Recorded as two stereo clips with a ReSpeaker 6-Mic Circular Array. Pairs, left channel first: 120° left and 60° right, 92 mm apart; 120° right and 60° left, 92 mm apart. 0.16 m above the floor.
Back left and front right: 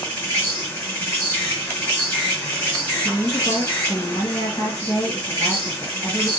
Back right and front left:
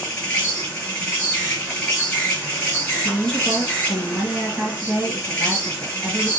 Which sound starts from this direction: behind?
An insect, at 0.0 s.